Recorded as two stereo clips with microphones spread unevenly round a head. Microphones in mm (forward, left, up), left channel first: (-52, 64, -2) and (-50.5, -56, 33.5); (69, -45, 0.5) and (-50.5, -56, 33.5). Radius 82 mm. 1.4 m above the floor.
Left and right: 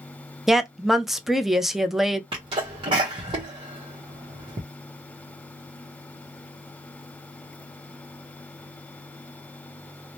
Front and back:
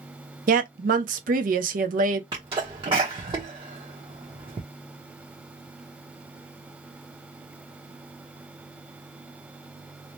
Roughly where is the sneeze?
Behind right.